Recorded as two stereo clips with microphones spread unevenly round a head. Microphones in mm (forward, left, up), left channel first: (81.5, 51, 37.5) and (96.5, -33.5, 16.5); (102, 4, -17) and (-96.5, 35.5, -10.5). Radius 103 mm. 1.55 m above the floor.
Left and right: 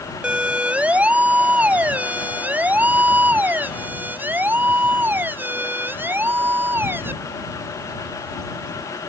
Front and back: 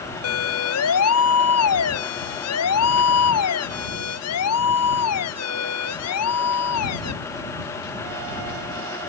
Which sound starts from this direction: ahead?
A siren, at 0.2 s.